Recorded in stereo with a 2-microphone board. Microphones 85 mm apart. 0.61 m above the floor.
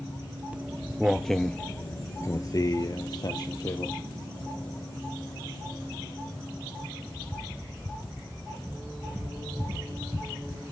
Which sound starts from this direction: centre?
Footsteps, at 0.5 s.